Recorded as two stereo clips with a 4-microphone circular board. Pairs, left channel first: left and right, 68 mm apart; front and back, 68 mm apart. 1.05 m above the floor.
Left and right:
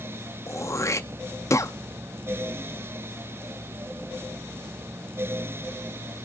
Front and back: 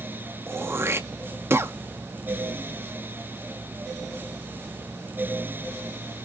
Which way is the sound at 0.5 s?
130° left.